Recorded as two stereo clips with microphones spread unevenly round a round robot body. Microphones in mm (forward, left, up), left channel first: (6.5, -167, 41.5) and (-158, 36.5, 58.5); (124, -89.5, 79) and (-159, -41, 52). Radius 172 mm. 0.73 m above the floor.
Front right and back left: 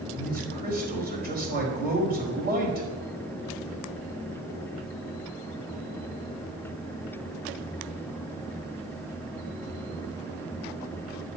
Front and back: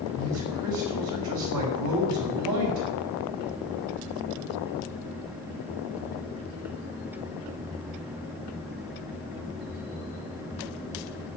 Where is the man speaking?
175° right, 4.5 m.